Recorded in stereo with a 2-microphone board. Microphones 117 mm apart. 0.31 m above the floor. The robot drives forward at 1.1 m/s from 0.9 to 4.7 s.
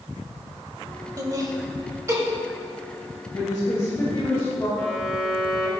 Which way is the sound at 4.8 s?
10° left (ahead or behind).